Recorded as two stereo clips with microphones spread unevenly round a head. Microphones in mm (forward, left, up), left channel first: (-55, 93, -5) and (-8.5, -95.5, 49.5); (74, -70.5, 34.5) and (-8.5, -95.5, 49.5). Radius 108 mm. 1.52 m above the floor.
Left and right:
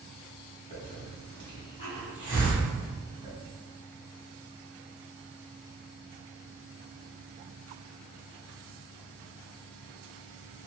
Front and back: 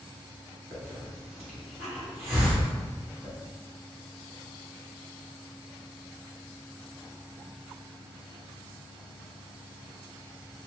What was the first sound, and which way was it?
A hiss, 175° left.